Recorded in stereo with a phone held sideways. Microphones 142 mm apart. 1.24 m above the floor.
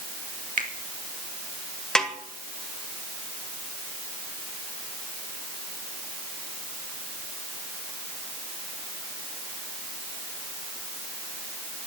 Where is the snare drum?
5° left (ahead or behind), 2.0 m.